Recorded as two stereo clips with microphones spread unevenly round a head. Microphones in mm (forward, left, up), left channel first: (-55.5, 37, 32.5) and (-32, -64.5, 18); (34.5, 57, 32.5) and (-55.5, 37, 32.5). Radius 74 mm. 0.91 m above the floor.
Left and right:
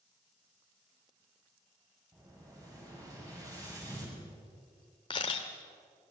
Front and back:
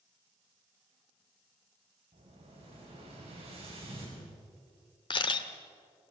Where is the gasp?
No gasp in this recording.